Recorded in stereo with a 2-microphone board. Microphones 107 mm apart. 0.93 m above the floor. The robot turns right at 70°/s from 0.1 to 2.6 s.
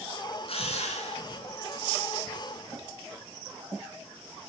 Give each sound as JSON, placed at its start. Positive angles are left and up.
{"t": 0.4, "sound": "a drill", "azimuth_deg": 60, "distance_m": 5.0}